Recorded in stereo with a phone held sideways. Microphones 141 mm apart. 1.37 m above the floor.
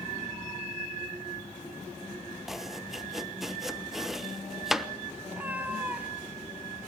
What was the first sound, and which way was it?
Chopping, centre (ahead or behind).